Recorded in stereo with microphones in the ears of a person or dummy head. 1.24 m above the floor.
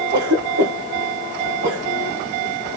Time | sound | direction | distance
0.1 | a cough | 55° right (ahead or behind) | 1.1 m